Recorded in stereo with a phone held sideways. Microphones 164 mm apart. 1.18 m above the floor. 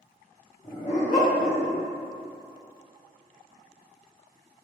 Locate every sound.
0.6 s a dog barking: 35° left (ahead or behind), 0.9 m; by 1.8 s 60° left (ahead or behind), 1.3 m